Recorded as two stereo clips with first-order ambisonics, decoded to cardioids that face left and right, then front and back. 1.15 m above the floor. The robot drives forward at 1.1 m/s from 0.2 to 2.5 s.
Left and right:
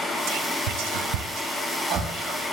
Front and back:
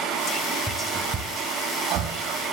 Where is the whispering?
60° right, 1.3 m; by 2.4 s 145° right, 2 m.